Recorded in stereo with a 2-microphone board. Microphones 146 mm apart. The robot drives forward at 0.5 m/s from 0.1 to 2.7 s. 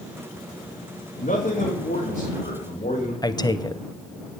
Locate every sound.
1.2 s a man speaking: 65° left (ahead or behind), 2.5 m; by 3.1 s 50° left (ahead or behind), 3 m
3.2 s a man speaking: 30° left (ahead or behind), 0.7 m